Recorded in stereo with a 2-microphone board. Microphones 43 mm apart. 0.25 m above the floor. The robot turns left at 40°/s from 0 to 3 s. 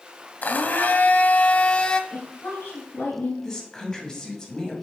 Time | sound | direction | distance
0.4 | a blender | 95° left | 0.6 m
2.1 | a woman speaking | 100° left | 4 m
3.4 | a woman speaking | 20° left (ahead or behind) | 1.8 m